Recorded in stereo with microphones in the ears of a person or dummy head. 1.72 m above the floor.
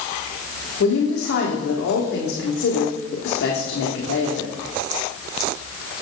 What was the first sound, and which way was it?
A woman speaking, 70° left (ahead or behind).